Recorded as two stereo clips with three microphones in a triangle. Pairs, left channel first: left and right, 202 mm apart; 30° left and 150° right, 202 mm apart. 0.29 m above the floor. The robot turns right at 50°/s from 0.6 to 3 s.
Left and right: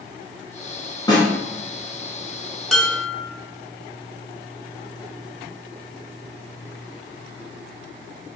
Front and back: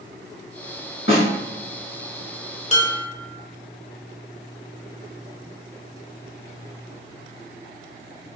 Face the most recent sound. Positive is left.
turn(degrees=15)